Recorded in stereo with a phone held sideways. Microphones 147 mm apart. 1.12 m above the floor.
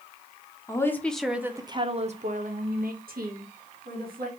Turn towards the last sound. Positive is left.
turn(degrees=-85)